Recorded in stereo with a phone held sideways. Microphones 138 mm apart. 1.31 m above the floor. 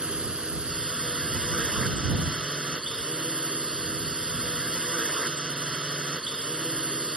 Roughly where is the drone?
Centre.